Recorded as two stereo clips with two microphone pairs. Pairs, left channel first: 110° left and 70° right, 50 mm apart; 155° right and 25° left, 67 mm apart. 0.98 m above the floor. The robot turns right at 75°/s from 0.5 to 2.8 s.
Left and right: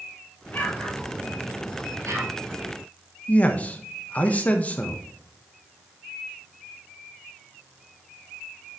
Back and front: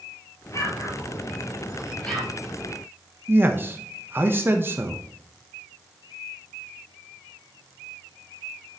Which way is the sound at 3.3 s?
65° left.